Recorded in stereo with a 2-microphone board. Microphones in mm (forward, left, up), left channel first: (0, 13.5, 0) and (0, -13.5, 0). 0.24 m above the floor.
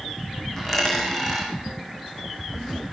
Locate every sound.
0.6 s a dropped coin: 15° left (ahead or behind), 5.5 m